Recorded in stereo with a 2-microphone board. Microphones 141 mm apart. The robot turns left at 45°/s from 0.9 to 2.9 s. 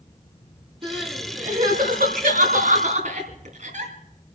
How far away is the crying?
About 3 m.